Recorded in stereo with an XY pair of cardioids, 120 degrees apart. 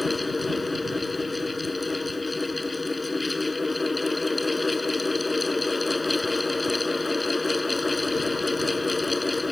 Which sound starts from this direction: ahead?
A fan, at 0.0 s.